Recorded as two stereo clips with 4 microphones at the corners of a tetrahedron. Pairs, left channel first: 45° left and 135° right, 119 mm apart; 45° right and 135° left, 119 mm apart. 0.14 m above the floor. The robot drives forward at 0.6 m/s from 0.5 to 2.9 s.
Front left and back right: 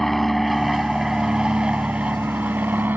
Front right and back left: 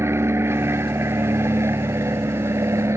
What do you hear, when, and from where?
0.0 s an aircraft: 130° left; by 3.0 s 170° left